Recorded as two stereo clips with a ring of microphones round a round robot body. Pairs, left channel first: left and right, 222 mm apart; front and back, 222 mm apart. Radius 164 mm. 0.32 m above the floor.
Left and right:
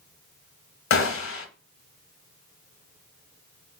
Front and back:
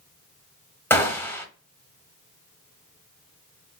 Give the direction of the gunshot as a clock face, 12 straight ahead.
9 o'clock.